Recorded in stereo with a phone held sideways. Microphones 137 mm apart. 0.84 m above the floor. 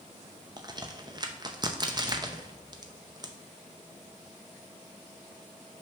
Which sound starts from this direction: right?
A crack, at 0.6 s.